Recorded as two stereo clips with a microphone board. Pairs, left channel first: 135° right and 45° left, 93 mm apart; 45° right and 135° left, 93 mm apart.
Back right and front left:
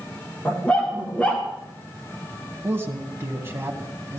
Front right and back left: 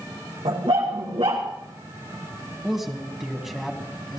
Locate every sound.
0.5 s a dog barking: 150° left, 4.5 m
2.6 s a man speaking: 55° left, 1.7 m